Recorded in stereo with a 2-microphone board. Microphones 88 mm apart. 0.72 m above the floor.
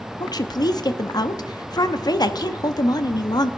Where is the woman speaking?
50° left (ahead or behind), 0.8 m.